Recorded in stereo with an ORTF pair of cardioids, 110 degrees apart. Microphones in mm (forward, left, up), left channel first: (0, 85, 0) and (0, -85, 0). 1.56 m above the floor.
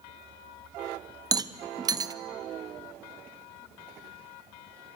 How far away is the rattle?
About 0.7 m.